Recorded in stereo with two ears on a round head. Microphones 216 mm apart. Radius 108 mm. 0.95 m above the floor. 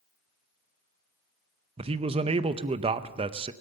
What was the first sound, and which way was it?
A man speaking, 25° right (ahead or behind).